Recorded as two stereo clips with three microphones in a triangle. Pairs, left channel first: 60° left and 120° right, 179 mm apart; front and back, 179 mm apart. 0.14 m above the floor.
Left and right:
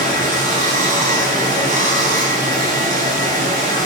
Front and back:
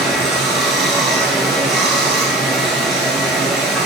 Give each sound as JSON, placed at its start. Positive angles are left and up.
{"t": 0.0, "sound": "running water", "azimuth_deg": -90, "distance_m": 0.8}